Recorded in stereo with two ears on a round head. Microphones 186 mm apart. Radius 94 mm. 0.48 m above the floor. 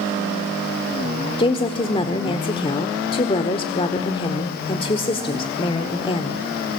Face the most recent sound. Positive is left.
turn(degrees=25)  # may be behind; listen again after turning